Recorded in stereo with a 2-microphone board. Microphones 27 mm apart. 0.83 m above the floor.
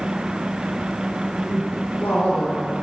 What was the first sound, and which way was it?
A woman speaking, 55° left (ahead or behind).